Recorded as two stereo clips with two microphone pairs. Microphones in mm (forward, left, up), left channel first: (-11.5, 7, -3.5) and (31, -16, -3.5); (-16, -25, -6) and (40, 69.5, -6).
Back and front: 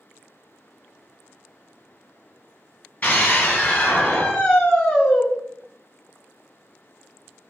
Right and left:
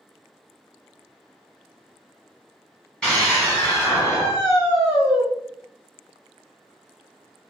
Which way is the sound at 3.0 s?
160° left.